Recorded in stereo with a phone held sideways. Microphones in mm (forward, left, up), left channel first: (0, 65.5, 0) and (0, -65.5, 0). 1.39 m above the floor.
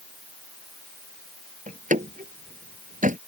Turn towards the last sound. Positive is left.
turn(degrees=-80)